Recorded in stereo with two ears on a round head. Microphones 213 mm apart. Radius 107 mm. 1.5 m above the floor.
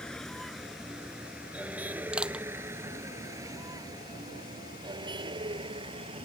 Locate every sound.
0.0 s a vehicle: 5° left (ahead or behind); by 6.2 s 25° right (ahead or behind)
2.1 s crushing: 5° right (ahead or behind)